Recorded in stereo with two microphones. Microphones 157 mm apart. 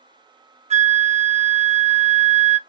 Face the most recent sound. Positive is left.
turn(degrees=-45)  # may be behind; listen again after turning